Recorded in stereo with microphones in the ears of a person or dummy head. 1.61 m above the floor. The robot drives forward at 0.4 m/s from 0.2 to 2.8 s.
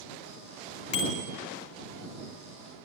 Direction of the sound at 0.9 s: 35° left (ahead or behind).